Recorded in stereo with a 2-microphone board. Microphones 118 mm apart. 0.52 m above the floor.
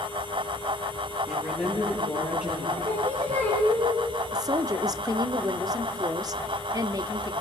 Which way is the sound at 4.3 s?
35° right (ahead or behind).